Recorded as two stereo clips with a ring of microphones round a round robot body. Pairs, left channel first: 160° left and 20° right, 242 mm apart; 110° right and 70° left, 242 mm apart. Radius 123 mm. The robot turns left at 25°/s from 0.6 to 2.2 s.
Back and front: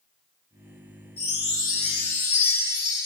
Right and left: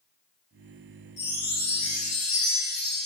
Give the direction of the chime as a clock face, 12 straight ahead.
5 o'clock.